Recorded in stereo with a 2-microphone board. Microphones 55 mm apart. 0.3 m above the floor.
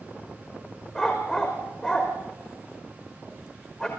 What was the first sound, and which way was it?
A dog barking, 15° left (ahead or behind).